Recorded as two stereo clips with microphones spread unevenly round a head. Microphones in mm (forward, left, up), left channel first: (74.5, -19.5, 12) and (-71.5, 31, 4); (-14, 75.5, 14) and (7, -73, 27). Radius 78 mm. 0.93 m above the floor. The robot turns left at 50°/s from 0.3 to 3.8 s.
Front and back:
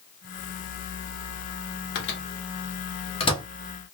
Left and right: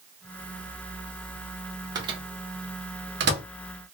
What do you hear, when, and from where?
1.9 s a microwave: 15° right, 0.9 m; by 3.4 s 85° right, 0.9 m